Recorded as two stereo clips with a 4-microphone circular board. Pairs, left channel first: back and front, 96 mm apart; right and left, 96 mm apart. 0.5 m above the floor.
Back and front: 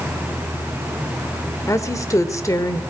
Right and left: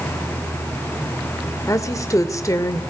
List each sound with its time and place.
1.7 s a woman speaking: 135° right, 1.9 m